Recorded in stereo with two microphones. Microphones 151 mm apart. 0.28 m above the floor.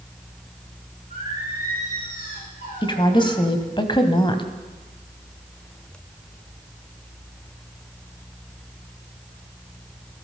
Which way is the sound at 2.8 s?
30° left (ahead or behind).